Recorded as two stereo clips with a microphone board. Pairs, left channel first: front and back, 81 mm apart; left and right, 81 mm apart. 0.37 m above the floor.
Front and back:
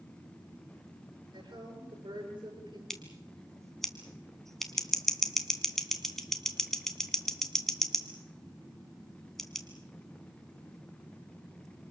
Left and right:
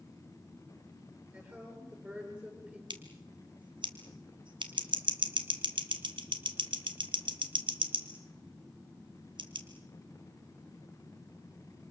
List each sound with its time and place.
1.3 s a woman speaking: 160° right, 9 m
2.9 s scissors: 85° right, 2 m